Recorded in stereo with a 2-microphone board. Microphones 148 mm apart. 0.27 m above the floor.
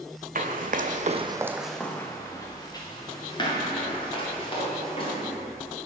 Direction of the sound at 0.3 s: 70° right (ahead or behind).